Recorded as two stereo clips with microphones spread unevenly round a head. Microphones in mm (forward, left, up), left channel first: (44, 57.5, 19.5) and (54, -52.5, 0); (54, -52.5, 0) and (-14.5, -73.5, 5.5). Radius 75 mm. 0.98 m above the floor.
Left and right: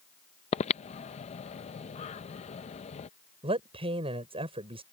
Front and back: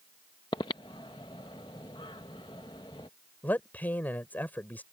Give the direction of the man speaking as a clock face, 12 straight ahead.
2 o'clock.